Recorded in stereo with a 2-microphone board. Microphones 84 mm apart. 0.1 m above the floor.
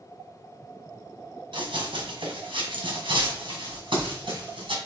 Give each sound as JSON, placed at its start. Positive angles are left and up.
{"t": 1.5, "sound": "running footsteps", "side_deg": -80, "distance_m": 3.0}